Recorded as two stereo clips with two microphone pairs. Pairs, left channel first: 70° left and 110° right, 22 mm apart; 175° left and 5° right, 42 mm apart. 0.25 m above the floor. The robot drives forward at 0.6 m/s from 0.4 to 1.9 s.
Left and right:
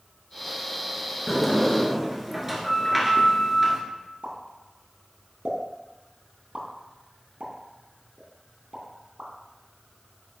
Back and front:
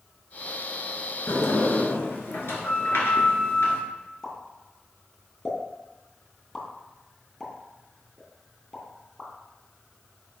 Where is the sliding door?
160° left, 1.3 m; by 3.8 s 165° left, 1.7 m.